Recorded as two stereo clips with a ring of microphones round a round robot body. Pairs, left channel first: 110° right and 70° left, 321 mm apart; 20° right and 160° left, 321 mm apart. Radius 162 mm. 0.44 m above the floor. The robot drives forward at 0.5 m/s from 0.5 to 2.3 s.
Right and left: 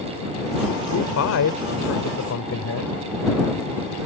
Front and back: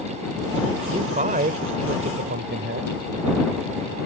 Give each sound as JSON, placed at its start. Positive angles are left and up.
{"t": 0.9, "sound": "a man speaking", "azimuth_deg": -135}